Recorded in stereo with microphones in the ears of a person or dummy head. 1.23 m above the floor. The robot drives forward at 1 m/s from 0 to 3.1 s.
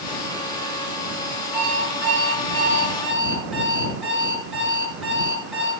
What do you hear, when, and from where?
1.5 s an alarm clock: 5° right (ahead or behind), 7 m